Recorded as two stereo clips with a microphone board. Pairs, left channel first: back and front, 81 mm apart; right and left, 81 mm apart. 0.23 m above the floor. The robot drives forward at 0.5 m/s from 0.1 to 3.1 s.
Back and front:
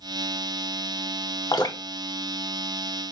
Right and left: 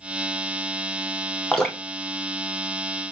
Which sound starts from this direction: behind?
Dripping, at 1.5 s.